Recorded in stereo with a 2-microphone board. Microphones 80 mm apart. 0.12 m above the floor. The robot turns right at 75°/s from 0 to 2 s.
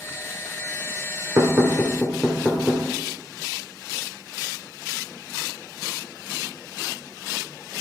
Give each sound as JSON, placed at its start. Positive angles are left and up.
{"t": 1.4, "sound": "knocking", "side_deg": -30, "distance_m": 1.2}